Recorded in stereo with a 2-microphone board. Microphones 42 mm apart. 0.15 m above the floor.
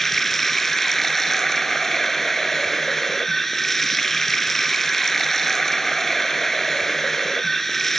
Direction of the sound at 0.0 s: 5° left (ahead or behind).